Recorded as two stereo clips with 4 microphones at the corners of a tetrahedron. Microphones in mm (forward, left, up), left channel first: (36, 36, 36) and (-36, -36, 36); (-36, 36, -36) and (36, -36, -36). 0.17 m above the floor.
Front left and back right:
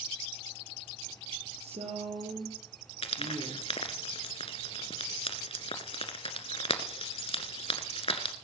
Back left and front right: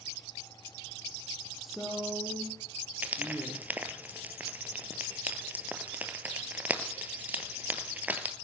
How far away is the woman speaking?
About 4.5 m.